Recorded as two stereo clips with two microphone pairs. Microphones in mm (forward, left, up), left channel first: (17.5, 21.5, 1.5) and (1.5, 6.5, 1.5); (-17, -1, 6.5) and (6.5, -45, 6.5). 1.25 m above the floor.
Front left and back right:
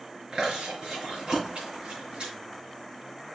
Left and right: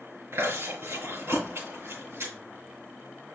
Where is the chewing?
95° right, 5.5 m.